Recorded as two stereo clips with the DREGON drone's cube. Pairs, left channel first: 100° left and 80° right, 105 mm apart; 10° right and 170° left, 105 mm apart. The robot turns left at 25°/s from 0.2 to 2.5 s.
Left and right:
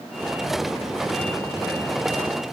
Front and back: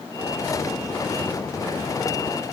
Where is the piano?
I don't hear a piano.